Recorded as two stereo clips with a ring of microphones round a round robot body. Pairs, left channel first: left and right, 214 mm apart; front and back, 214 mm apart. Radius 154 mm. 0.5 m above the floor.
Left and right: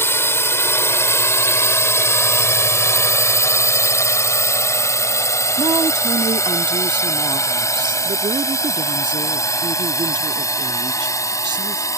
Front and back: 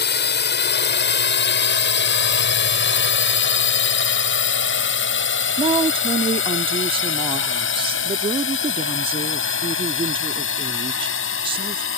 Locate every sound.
0.0 s a drone: 15° left
5.6 s a woman speaking: 140° right